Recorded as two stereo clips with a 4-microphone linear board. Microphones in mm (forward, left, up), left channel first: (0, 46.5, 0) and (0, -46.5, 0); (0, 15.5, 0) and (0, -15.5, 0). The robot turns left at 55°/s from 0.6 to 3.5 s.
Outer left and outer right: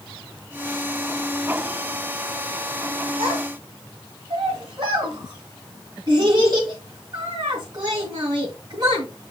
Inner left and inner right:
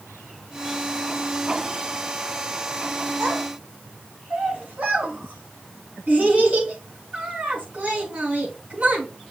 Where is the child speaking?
70° right (ahead or behind), 3 m; by 9.1 s 50° right (ahead or behind), 3 m.